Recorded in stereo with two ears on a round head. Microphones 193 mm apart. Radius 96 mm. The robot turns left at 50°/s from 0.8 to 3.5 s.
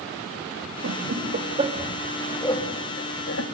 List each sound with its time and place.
0.8 s laughter: 65° right (ahead or behind), 3 m; by 3.4 s 65° left (ahead or behind), 3 m